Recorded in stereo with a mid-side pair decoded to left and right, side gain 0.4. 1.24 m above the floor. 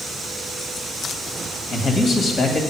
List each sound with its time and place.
1.7 s a man speaking: 50° left, 2 m